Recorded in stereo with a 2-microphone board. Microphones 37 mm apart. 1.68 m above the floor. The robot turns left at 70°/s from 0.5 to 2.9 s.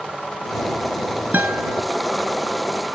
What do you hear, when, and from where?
1.3 s a guitar: 70° right; by 1.8 s 105° right